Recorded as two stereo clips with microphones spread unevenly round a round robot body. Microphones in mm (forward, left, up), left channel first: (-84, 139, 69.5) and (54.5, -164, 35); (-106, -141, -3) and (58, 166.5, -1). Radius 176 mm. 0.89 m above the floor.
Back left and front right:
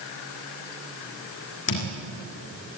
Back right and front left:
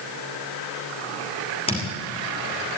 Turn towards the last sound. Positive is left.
turn(degrees=170)